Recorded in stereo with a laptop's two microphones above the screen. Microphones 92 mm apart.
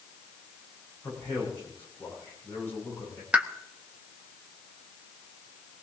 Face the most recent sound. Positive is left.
turn(degrees=-15)  # may be behind; listen again after turning